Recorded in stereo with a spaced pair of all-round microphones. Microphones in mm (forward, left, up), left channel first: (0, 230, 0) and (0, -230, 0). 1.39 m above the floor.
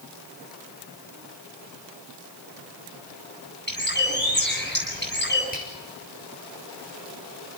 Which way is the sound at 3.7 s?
20° left (ahead or behind).